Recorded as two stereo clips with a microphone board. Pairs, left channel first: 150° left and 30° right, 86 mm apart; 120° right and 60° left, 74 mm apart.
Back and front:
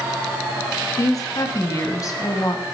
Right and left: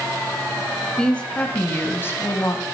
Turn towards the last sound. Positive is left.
turn(degrees=-165)